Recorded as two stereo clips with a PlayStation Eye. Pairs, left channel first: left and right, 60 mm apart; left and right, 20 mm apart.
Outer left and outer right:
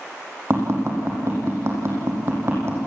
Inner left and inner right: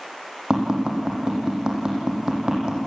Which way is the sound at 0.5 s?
45° right (ahead or behind).